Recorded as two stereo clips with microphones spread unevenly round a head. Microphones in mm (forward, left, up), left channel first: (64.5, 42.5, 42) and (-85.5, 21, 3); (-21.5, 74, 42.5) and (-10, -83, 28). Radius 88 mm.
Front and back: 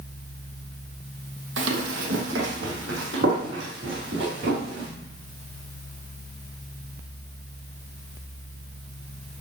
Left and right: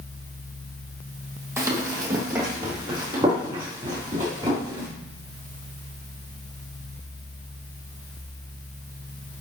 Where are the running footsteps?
160° right, 2.5 m; by 4.9 s 150° right, 6 m.